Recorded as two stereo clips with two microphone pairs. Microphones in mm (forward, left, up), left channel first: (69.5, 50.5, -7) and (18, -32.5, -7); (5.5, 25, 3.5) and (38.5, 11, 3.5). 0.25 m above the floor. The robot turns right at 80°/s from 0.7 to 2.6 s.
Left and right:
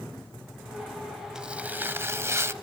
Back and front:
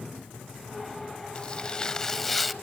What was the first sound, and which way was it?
Tearing paper, 160° left.